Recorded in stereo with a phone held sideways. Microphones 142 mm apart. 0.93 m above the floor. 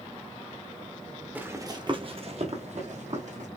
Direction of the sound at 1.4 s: 15° right (ahead or behind).